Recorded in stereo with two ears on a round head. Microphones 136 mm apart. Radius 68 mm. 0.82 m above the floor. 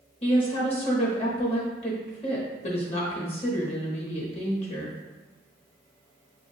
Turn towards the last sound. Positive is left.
turn(degrees=40)  # may be behind; listen again after turning